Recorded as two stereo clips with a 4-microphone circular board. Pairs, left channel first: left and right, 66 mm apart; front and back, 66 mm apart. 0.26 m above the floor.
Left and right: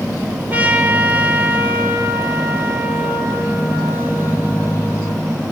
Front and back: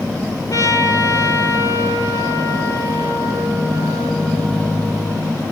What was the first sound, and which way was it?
A trumpet, 25° right.